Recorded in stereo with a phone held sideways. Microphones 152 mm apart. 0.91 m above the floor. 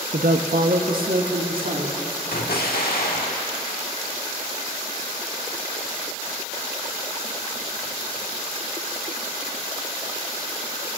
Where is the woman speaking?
60° right (ahead or behind), 0.6 m; by 2.0 s 70° right (ahead or behind), 2 m.